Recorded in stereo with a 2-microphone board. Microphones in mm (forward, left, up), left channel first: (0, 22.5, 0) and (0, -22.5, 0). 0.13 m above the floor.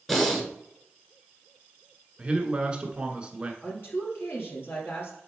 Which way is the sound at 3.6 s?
55° left (ahead or behind).